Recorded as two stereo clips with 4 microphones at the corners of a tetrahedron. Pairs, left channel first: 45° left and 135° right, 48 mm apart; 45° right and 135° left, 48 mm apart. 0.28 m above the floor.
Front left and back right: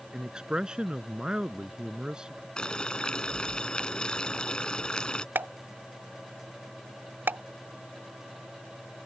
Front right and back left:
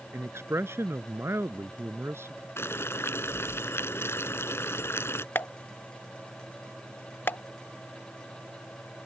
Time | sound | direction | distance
0.1 | a man speaking | 155° left | ?
2.6 | boiling | 25° right | ?
5.3 | a pop | 90° right | ?